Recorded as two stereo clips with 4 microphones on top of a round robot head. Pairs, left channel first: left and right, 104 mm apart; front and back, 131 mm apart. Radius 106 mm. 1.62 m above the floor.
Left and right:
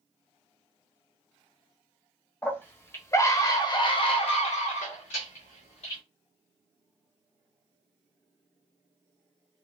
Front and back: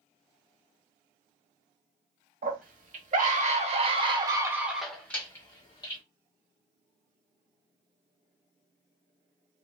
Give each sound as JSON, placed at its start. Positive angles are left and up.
{"t": 2.4, "sound": "a scream", "azimuth_deg": 160, "distance_m": 1.4}